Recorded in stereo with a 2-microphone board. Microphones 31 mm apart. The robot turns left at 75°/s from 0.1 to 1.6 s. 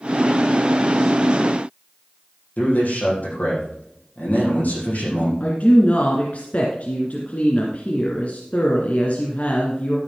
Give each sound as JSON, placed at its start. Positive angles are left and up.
{"t": 2.6, "sound": "a man speaking", "side_deg": 60, "distance_m": 6.0}
{"t": 5.4, "sound": "a woman speaking", "side_deg": 55, "distance_m": 1.8}